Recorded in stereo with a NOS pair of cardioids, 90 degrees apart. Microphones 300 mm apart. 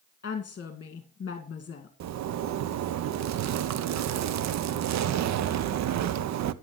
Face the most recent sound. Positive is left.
turn(degrees=-65)